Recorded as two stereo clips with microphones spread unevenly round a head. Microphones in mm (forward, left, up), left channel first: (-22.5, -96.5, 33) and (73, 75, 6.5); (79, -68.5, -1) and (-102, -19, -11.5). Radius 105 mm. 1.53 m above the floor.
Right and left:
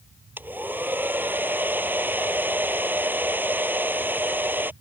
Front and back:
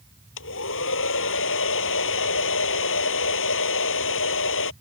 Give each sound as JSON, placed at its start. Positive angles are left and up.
{"t": 0.4, "sound": "a hair dryer", "azimuth_deg": -20}